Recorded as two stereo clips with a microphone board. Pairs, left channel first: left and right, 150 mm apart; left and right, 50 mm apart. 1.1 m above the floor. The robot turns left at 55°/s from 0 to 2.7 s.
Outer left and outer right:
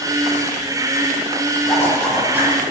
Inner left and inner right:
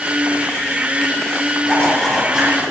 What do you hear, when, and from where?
1.6 s a zipper: 25° left, 4 m; by 2.5 s 25° right, 4 m